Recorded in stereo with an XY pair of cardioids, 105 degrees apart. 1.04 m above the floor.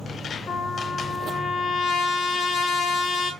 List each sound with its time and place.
0.5 s a trumpet: 65° left, 0.7 m